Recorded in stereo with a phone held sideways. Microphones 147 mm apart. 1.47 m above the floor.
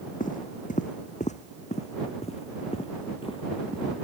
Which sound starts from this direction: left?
Footsteps, at 0.2 s.